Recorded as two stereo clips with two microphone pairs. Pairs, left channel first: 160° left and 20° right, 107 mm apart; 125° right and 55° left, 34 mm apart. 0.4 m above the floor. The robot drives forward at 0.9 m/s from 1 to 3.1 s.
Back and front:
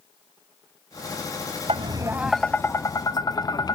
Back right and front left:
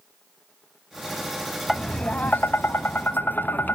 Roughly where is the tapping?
Ahead right.